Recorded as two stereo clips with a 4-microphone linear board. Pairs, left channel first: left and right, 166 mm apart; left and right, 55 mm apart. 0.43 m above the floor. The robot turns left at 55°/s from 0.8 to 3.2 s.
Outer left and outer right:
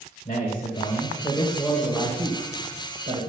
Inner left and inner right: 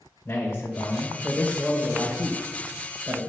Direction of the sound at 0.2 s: 50° left.